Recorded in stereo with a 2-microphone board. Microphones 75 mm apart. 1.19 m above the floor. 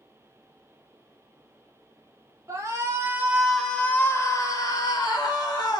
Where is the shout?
45° right (ahead or behind), 0.8 m; by 5.8 s 70° left (ahead or behind), 1.3 m.